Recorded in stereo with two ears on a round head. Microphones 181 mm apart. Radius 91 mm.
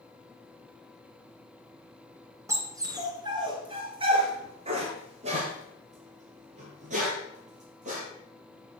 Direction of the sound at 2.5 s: 15° right (ahead or behind).